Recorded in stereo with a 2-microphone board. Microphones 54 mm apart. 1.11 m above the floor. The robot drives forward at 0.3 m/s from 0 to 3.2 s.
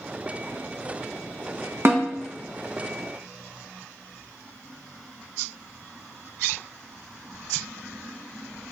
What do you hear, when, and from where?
1.9 s a snare drum: 45° right (ahead or behind), 0.7 m